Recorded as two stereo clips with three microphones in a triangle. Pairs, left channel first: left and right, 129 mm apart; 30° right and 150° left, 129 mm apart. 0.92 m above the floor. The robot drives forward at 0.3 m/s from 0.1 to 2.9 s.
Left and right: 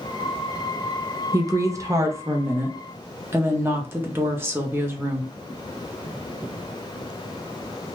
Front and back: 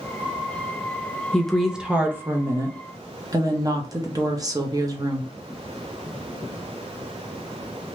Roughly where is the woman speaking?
Right.